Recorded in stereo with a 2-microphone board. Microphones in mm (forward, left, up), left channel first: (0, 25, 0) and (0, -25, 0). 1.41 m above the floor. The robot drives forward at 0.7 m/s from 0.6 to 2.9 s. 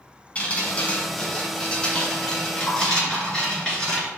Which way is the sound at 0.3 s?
30° left (ahead or behind).